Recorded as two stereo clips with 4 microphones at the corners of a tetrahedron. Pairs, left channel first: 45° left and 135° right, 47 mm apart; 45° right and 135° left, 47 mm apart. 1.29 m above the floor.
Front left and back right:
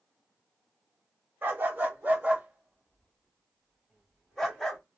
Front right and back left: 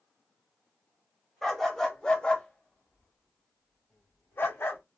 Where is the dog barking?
130° right, 1.3 m; by 4.8 s 40° right, 1.8 m.